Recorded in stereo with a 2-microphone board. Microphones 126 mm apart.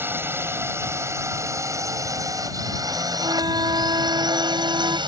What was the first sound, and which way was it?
A drone, 20° right (ahead or behind).